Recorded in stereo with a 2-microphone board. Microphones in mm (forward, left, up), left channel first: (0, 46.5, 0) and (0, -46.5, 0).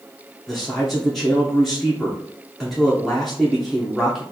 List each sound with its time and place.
0.5 s a man speaking: centre (ahead or behind), 0.7 m